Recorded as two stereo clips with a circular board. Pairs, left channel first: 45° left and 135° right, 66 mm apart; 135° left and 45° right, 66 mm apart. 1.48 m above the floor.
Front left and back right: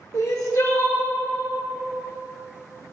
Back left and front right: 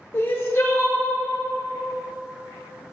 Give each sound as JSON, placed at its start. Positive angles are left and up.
{"t": 0.1, "sound": "crying", "azimuth_deg": 80, "distance_m": 1.1}